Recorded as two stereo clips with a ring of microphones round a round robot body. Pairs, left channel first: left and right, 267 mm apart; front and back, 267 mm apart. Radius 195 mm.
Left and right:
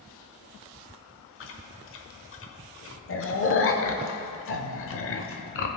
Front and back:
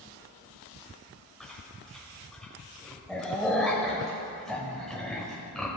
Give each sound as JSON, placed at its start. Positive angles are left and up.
{"t": 1.4, "sound": "chewing", "azimuth_deg": 90, "distance_m": 0.9}